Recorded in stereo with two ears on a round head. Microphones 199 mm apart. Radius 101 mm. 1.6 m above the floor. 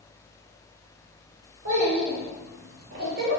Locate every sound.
1.6 s a child speaking: 65° right (ahead or behind), 2.5 m; by 3.4 s 40° right (ahead or behind), 1.6 m